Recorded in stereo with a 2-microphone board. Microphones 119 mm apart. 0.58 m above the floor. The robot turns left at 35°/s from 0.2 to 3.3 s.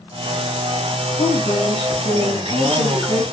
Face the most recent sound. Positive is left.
turn(degrees=5)